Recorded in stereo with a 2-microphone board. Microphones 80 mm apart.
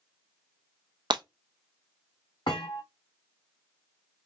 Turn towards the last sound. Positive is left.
turn(degrees=75)  # may be behind; listen again after turning